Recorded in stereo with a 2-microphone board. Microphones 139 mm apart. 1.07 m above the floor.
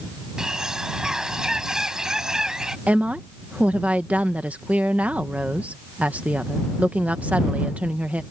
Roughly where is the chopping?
I don't hear chopping.